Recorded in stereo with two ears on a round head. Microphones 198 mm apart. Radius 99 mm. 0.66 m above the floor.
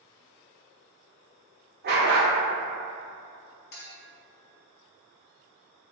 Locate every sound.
1.8 s a dog barking: 45° right (ahead or behind), 0.6 m
3.7 s a clink: 50° left (ahead or behind), 0.7 m